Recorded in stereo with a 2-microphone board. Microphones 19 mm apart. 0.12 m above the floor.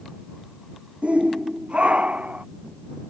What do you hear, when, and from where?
1.0 s a shout: 75° right (ahead or behind); by 2.5 s 80° right